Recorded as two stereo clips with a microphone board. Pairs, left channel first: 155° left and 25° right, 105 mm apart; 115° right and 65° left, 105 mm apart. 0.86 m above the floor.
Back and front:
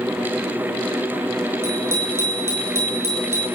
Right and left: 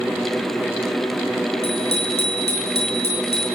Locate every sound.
1.6 s a bicycle bell: 90° right, 10 m